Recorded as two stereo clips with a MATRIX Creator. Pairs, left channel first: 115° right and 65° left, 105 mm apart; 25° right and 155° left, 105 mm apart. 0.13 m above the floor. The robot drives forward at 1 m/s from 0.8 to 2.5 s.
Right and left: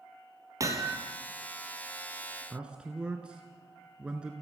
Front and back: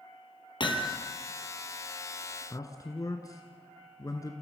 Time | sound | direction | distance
0.6 | hammering | 10° left | 2 m
2.5 | a man speaking | 5° right | 1.6 m